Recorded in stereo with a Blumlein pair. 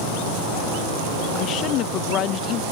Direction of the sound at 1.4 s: 35° left.